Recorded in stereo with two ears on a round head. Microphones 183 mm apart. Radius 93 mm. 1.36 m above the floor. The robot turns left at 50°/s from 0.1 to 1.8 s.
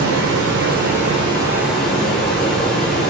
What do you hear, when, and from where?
0.0 s running water: 95° right, 0.7 m; by 3.1 s straight behind, 0.7 m